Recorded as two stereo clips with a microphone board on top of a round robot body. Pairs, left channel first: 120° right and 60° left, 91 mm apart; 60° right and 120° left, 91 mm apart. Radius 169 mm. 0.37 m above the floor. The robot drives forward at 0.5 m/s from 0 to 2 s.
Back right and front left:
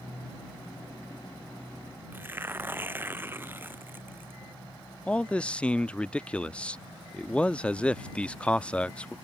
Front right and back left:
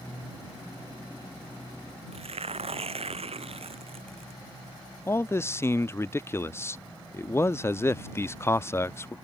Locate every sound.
2.1 s tearing paper: 130° left
5.1 s a man speaking: 55° right